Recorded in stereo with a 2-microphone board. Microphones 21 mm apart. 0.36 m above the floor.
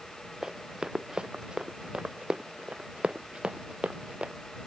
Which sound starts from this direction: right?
Running footsteps, at 0.4 s.